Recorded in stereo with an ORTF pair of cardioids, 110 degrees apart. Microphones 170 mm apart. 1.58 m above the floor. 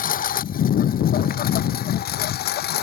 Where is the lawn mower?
55° left; by 2.8 s 70° left.